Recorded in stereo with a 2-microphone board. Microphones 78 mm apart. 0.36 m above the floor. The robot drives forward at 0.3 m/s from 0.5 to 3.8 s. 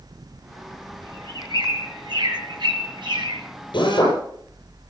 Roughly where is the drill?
Left.